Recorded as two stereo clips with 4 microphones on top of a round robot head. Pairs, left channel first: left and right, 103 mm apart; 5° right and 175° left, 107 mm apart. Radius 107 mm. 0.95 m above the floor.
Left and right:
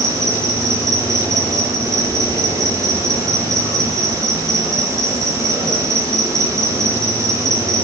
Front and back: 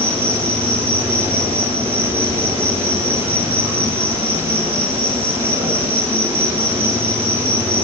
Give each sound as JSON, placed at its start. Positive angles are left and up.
{"t": 0.0, "sound": "an insect", "azimuth_deg": -150, "distance_m": 9.0}